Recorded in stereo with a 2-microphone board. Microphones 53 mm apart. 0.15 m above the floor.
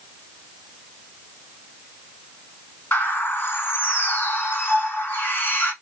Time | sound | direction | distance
2.9 | a bird | 35° left (ahead or behind) | 1.5 m